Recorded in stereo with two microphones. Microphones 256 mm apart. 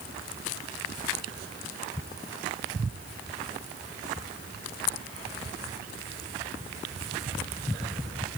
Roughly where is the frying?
No frying in this recording.